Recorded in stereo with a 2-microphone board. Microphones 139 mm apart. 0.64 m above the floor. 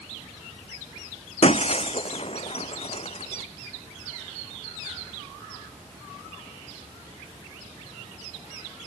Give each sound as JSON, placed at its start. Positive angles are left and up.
{"t": 1.4, "sound": "breaking glass", "side_deg": 50}